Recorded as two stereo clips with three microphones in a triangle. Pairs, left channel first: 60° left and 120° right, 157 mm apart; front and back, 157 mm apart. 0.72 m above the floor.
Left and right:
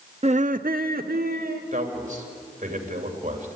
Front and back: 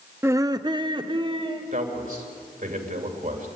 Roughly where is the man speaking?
Behind right.